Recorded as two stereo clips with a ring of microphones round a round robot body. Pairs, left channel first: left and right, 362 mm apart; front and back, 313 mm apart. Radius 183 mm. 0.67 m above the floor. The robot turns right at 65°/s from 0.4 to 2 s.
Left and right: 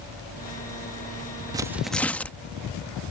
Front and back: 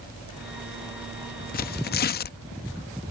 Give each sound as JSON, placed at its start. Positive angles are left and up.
{"t": 1.5, "sound": "tearing paper", "azimuth_deg": -20}